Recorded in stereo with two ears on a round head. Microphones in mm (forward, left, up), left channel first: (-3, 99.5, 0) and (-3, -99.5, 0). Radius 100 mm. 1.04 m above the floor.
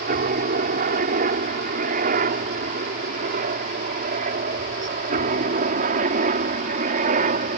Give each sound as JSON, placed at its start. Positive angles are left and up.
{"t": 0.0, "sound": "a helicopter", "side_deg": -40}